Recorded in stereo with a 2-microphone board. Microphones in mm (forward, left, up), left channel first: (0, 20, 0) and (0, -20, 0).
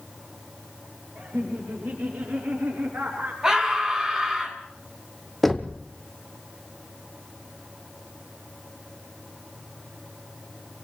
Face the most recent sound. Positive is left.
turn(degrees=5)  # may be behind; listen again after turning